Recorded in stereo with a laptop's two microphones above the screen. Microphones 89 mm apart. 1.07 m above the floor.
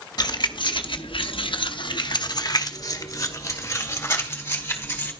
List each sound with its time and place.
0.2 s keys jangling: 50° left (ahead or behind), 1.0 m; by 5.1 s 25° left (ahead or behind), 2.5 m